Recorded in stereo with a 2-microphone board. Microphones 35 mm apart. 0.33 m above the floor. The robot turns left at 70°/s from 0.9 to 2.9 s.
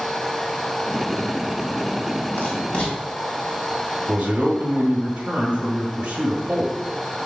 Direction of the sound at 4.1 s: 30° right (ahead or behind).